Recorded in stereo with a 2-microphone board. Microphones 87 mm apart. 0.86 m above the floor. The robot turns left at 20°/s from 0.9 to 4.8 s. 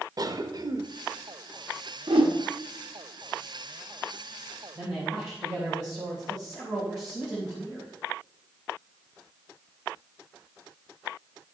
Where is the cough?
50° right (ahead or behind), 0.9 m.